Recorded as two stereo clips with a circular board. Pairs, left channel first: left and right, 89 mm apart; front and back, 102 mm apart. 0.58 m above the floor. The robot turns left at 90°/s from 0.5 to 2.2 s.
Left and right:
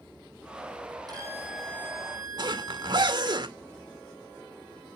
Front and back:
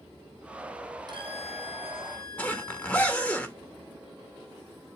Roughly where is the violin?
Behind right.